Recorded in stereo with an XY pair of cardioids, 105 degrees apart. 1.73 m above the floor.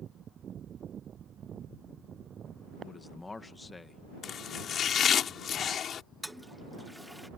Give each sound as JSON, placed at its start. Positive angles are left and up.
{"t": 2.8, "sound": "a man speaking", "azimuth_deg": 25}
{"t": 4.2, "sound": "chopping", "azimuth_deg": 60}
{"t": 6.2, "sound": "a toilet flushing", "azimuth_deg": 0}